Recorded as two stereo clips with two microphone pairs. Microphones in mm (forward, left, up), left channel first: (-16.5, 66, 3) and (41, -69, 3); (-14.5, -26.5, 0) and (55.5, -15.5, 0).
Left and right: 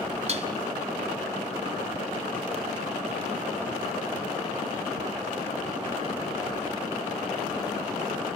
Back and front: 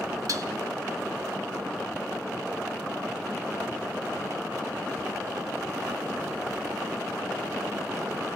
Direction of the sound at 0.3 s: 25° right.